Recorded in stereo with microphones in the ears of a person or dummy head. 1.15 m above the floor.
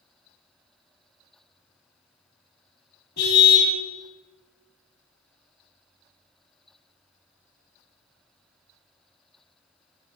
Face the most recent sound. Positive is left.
turn(degrees=60)  # may be behind; listen again after turning